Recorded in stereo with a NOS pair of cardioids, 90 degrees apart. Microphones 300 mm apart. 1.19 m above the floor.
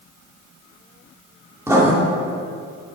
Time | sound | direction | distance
1.7 | writing | 10° right | 2.5 m